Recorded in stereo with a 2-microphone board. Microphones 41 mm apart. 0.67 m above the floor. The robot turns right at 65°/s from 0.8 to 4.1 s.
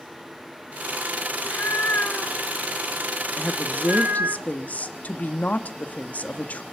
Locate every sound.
1.3 s a cat meowing: 75° left, 1.3 m; by 4.4 s 105° right, 1.3 m
3.4 s a woman speaking: 45° left, 1.3 m; by 6.6 s 95° left, 1.3 m